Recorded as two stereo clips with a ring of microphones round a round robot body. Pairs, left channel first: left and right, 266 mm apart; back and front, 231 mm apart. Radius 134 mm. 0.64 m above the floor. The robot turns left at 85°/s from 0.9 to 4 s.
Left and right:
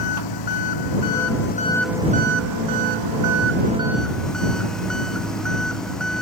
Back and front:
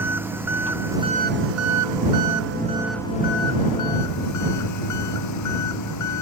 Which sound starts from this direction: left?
An engine running, at 0.0 s.